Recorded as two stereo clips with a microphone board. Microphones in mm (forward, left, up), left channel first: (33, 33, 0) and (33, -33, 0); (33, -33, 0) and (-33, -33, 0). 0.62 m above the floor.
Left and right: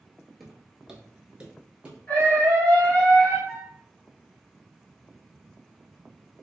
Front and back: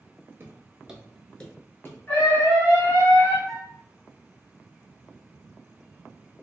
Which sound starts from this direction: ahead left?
A scream, at 2.1 s.